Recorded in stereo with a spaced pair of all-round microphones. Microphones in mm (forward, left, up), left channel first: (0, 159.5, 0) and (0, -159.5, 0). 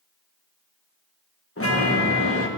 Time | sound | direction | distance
1.6 | a chime | 40° left (ahead or behind) | 1.3 m